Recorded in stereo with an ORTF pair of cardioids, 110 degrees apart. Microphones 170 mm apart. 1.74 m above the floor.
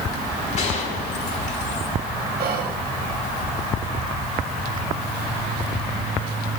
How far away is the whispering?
About 1.6 m.